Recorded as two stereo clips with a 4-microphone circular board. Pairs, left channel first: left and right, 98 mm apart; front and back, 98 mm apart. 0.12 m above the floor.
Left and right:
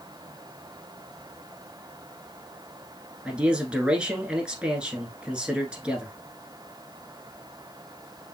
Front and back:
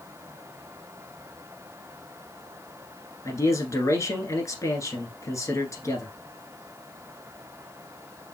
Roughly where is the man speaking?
Ahead.